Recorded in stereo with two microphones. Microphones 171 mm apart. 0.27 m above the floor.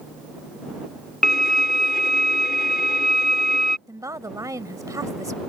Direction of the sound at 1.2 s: 65° left (ahead or behind).